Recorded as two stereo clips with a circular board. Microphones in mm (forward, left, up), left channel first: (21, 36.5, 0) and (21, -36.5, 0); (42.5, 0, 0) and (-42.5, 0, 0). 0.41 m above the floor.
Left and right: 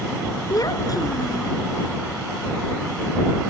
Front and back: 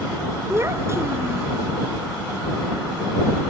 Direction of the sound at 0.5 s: 120° left.